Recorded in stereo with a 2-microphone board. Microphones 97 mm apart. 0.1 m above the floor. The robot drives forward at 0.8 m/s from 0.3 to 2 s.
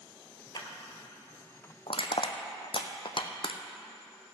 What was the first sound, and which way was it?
A clap, 40° left (ahead or behind).